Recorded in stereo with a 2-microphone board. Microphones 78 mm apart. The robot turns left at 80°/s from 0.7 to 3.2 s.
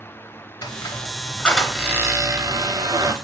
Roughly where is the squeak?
Left.